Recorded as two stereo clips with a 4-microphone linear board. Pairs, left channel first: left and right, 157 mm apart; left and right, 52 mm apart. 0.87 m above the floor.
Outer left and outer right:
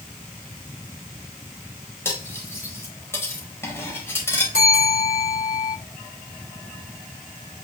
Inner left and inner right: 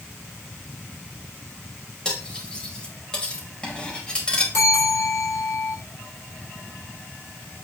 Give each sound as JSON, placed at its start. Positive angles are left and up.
{"t": 2.0, "sound": "cutlery clinking", "side_deg": 15, "distance_m": 2.5}
{"t": 4.5, "sound": "a bell", "side_deg": 70, "distance_m": 4.0}